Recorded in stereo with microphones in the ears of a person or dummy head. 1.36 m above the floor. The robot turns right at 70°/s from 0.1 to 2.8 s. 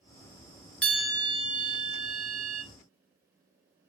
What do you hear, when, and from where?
0.8 s a bell: 170° left, 1.1 m; by 2.6 s 60° right, 1.1 m